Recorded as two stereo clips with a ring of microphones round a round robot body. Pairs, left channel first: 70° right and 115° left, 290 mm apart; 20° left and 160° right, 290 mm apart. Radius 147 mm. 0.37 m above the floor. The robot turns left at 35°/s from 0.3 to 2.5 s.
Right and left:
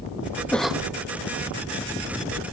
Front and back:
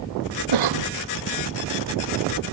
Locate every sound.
0.5 s a cough: 155° right; by 0.9 s 165° right